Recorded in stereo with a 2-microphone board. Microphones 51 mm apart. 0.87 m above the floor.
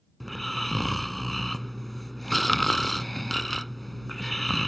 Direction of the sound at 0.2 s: 5° left (ahead or behind).